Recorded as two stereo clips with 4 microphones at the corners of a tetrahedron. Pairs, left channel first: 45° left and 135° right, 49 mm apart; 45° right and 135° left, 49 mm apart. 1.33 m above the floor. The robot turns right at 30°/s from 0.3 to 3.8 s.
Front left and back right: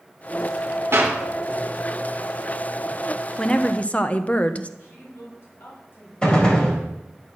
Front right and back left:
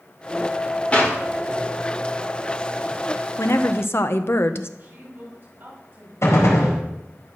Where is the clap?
110° right, 3.5 m; by 1.2 s 100° right, 3.5 m.